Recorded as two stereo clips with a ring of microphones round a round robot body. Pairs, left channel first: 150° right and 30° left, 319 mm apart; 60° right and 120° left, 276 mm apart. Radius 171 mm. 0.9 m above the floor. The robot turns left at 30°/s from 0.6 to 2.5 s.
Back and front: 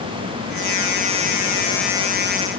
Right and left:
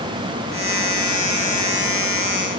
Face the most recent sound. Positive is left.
No sound to turn to.